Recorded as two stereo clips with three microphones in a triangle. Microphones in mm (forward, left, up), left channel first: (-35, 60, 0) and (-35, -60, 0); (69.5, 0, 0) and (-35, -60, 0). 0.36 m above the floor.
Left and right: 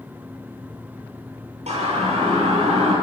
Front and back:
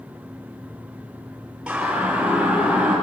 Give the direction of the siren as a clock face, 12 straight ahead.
2 o'clock.